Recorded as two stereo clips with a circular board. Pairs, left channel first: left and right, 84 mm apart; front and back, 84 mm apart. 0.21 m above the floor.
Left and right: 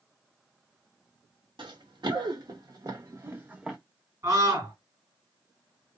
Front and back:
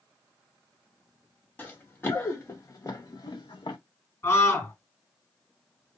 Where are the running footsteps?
70° right, 1.6 m; by 3.8 s 5° right, 0.7 m.